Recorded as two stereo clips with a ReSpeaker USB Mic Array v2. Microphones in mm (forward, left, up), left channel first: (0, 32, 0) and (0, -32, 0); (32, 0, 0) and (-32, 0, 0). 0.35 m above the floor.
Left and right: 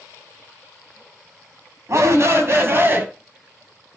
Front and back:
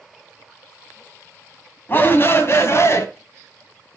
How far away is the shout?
About 2 m.